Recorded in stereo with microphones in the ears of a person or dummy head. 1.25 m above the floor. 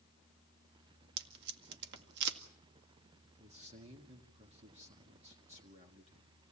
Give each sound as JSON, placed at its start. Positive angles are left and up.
{"t": 1.2, "sound": "tape being pulled", "side_deg": -65, "distance_m": 1.9}
{"t": 3.4, "sound": "a man speaking", "side_deg": -35, "distance_m": 1.7}